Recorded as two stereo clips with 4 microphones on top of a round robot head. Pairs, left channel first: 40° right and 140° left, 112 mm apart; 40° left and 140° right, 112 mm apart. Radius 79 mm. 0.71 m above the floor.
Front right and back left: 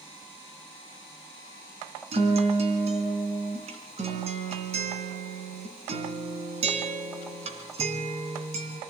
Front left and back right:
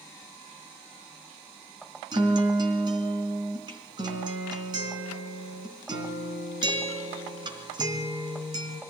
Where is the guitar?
170° left, 3 m.